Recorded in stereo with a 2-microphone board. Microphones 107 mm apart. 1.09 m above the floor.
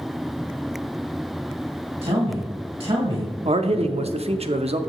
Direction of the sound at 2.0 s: 70° right (ahead or behind).